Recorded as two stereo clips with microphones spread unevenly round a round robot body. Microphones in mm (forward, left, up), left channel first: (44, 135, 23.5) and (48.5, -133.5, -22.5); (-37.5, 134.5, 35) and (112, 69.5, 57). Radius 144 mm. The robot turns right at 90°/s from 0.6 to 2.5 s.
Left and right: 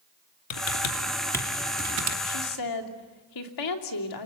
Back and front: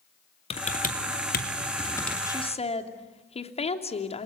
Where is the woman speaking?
85° left, 3 m; by 4.3 s 110° left, 3 m.